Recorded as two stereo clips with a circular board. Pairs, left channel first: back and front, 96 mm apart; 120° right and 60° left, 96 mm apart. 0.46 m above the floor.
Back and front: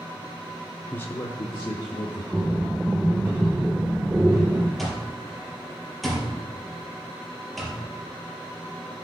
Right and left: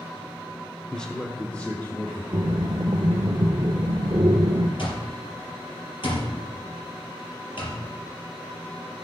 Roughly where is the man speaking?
Behind.